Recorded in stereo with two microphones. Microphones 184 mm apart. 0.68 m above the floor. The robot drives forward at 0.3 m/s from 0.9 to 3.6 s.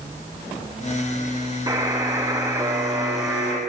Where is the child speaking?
I don't hear a child speaking.